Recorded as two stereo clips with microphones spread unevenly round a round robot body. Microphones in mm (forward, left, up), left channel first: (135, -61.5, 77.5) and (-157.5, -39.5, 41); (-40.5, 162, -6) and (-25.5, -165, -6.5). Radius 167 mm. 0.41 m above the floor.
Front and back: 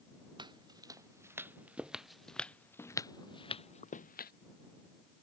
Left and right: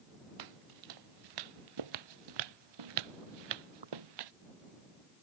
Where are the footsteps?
110° right; by 4.3 s 60° right.